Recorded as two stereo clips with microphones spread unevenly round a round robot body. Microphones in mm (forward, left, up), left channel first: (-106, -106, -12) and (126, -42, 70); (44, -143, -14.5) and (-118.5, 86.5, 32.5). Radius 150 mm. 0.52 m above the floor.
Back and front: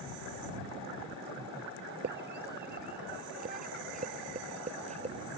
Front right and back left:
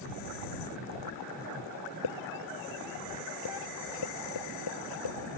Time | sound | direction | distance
2.0 | a scream | 30° right | ?